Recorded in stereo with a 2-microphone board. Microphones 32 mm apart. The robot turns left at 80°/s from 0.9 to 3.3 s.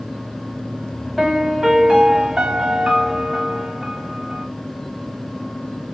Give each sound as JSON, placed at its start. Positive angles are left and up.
{"t": 1.2, "sound": "a piano", "side_deg": -5, "distance_m": 0.9}